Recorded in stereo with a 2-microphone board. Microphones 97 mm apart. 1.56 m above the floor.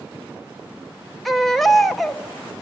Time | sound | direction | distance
1.2 | a baby crying | centre (ahead or behind) | 1.2 m